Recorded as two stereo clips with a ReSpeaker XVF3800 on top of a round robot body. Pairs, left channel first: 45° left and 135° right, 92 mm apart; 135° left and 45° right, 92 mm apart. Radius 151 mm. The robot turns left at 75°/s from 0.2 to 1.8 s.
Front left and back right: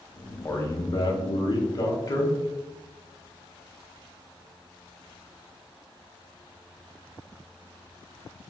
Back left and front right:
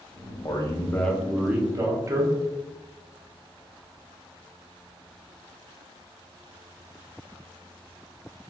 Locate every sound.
0.5 s a man speaking: 105° left, 1.1 m; by 2.4 s 5° left, 1.1 m